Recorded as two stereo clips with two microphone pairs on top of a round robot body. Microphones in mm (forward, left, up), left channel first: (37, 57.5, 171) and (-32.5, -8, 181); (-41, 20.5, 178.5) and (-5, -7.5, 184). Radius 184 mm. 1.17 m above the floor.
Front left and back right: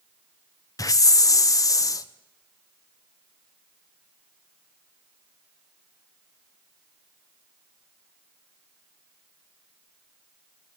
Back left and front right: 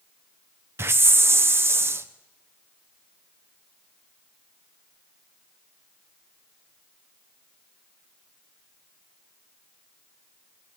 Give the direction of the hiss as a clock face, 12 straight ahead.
12 o'clock.